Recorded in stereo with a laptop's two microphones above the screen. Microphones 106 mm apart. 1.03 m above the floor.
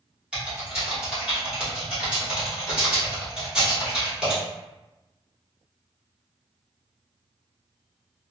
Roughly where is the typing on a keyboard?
Centre.